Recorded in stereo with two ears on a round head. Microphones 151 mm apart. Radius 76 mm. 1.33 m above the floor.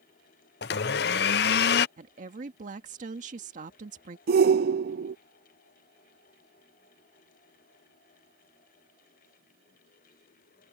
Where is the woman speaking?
45° right (ahead or behind).